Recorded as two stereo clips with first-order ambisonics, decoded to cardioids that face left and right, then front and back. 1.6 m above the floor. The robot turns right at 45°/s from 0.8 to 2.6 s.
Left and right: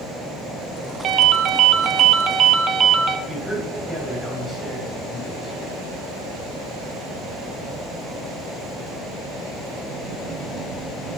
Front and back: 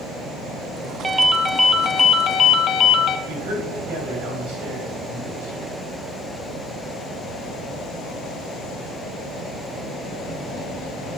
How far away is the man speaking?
About 4 m.